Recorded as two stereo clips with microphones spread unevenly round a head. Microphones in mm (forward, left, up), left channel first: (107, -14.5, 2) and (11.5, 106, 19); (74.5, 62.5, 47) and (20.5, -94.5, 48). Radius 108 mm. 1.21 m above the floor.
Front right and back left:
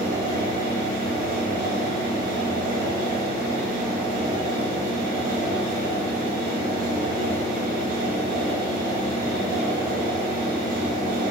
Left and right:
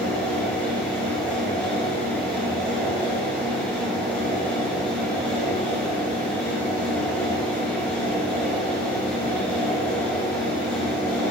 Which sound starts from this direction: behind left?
A fan, at 0.0 s.